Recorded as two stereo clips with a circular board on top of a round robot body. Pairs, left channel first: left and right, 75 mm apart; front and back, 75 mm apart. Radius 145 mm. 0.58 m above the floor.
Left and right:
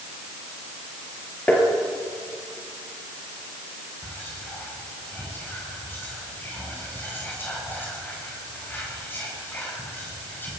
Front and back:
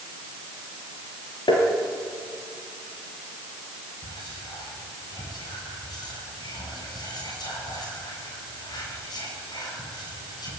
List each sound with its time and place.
1.5 s tapping: 20° left, 4 m
4.0 s whispering: 25° left, 8 m